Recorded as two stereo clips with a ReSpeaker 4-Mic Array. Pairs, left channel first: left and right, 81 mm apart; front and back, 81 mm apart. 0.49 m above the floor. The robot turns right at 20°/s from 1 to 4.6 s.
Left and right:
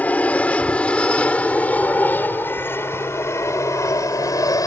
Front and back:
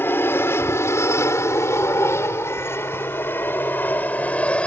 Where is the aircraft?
35° left; by 4.7 s 70° left.